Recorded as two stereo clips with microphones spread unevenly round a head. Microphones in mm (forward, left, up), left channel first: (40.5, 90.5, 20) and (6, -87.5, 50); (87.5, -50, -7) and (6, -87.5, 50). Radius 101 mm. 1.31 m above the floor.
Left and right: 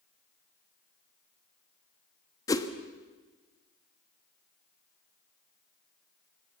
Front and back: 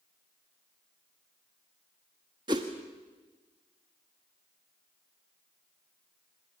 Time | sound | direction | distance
2.5 | a whoosh | 155° left | 1.3 m